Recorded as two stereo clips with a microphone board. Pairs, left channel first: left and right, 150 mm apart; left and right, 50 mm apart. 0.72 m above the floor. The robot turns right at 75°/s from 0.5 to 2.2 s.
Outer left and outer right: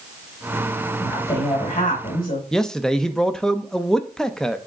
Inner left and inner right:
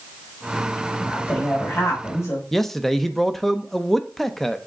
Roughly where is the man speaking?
Centre.